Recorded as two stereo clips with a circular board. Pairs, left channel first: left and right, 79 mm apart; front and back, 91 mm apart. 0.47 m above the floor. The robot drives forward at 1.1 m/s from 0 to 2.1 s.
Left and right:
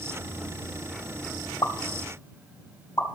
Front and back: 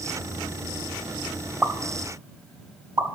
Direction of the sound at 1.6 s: 115° left.